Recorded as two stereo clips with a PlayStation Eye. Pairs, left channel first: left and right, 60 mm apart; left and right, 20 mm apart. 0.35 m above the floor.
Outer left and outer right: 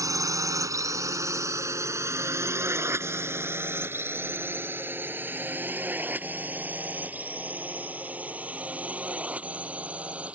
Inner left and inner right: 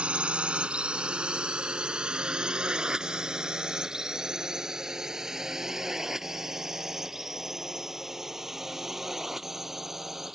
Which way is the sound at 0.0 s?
70° right (ahead or behind).